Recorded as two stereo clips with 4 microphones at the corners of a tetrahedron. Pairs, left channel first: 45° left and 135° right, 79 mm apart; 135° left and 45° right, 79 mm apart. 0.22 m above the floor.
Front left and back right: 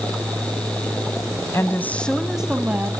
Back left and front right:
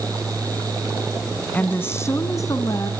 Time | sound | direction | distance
1.5 | a woman speaking | 75° left | 1.6 m